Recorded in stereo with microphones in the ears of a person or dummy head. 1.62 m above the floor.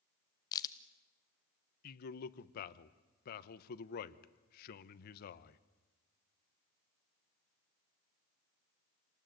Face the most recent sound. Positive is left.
turn(degrees=55)  # may be behind; listen again after turning